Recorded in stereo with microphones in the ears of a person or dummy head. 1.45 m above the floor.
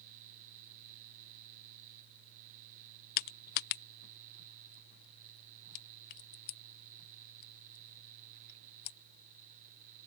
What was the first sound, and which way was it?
Crushing, 55° left (ahead or behind).